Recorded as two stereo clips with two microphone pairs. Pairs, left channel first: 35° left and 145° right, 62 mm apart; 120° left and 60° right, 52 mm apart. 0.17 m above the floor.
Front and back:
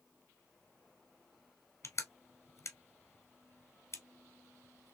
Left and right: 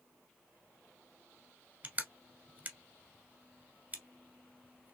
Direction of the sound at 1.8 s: Straight ahead.